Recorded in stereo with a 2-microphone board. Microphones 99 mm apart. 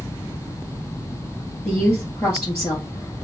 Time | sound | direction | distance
1.6 | a woman speaking | 20° left (ahead or behind) | 1.7 m